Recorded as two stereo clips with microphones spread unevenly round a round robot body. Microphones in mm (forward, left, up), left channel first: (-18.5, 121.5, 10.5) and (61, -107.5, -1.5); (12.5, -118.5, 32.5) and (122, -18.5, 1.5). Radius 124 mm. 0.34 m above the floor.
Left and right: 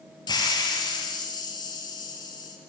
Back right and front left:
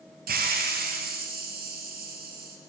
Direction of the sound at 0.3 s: 35° left.